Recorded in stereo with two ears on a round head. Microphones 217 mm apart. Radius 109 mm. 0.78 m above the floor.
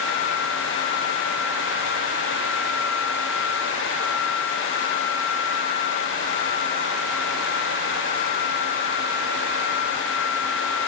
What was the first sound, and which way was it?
Only background noise.